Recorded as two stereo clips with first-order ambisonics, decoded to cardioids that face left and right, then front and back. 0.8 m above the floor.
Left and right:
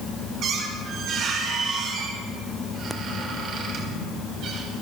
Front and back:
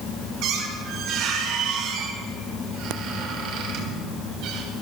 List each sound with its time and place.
0.4 s a squeak: 145° right, 3 m